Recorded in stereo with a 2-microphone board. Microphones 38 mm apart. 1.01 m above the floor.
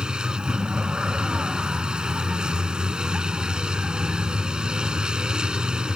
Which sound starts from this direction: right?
A vehicle, at 0.0 s.